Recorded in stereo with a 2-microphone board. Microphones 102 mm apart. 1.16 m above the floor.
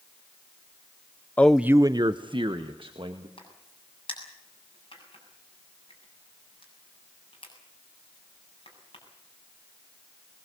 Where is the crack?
55° left (ahead or behind), 7.5 m.